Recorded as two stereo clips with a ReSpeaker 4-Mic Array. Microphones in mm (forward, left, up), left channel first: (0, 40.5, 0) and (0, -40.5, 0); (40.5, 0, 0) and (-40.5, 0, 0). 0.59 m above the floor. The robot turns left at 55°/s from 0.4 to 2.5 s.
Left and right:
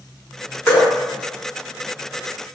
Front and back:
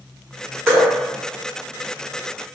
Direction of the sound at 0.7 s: 130° left.